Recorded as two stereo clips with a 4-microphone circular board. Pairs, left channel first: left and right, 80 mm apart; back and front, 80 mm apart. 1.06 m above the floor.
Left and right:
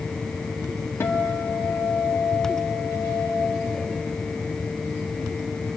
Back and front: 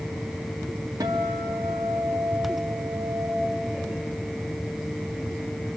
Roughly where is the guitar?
Ahead left.